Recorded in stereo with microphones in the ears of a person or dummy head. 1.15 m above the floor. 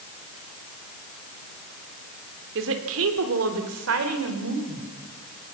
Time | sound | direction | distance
2.5 | a woman speaking | 70° right (ahead or behind) | 3 m